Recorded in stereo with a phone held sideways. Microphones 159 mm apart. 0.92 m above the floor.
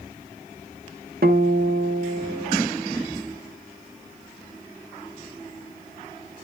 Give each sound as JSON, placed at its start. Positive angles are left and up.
{"t": 1.2, "sound": "a guitar", "side_deg": -75, "distance_m": 1.5}